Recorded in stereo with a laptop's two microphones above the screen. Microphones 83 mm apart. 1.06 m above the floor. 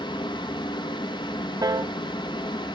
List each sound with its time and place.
0.0 s a fan: 70° left (ahead or behind), 0.9 m
1.6 s a piano: 50° right (ahead or behind), 0.6 m